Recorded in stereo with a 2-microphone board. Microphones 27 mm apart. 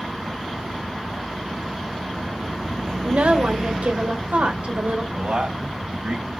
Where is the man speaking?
70° right (ahead or behind), 3.5 m.